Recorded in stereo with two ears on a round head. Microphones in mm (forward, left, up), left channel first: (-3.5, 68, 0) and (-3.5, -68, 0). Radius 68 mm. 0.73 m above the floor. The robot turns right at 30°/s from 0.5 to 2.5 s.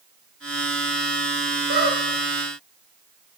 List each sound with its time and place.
1.7 s a squeak: 65° right (ahead or behind), 1.2 m; by 2.0 s 75° right (ahead or behind), 1.2 m